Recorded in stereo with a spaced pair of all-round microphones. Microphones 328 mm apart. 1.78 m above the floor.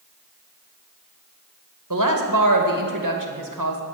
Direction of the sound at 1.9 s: 65° right (ahead or behind).